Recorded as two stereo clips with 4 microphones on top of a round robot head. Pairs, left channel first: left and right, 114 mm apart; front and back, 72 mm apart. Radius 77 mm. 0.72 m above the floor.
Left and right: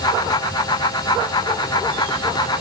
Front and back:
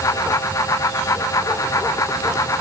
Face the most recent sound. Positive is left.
No sound to turn to.